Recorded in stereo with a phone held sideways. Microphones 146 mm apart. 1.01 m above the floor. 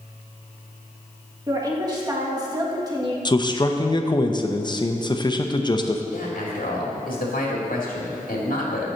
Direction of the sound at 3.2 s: 30° left (ahead or behind).